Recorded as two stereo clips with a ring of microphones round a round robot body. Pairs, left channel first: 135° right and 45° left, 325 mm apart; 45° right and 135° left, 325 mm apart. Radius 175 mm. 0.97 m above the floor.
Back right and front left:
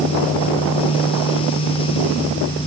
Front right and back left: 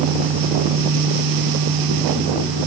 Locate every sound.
Only background noise.